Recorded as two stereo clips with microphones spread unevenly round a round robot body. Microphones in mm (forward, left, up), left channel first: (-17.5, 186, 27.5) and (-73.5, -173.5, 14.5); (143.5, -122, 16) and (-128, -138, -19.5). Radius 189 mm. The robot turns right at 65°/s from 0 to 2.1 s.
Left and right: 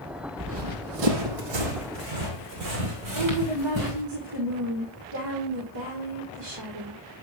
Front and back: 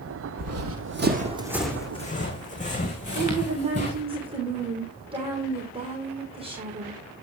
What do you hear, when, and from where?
0.4 s running footsteps: 160° right, 1.6 m; by 4.0 s 60° right, 5 m
3.1 s a woman speaking: 105° right, 3 m